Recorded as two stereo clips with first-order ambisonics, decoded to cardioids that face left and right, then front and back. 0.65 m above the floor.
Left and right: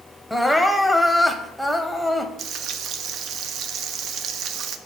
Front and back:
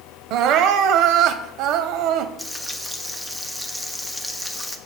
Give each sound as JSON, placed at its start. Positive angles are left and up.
{"t": 0.3, "sound": "crying", "azimuth_deg": 180, "distance_m": 0.6}
{"t": 2.4, "sound": "frying", "azimuth_deg": -95, "distance_m": 0.6}